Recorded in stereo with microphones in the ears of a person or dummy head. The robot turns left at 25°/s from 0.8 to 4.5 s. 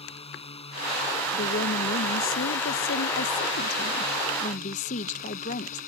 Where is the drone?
150° left; by 5.9 s 55° left.